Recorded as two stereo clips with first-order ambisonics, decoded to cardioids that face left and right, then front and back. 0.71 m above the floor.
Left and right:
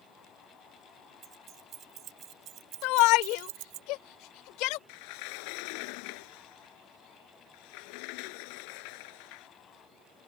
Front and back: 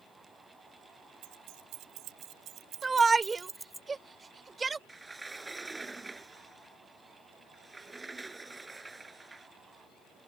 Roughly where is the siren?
I don't hear a siren.